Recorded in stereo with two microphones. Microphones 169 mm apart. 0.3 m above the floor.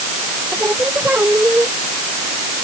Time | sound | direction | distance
0.5 | singing | 10° right (ahead or behind) | ?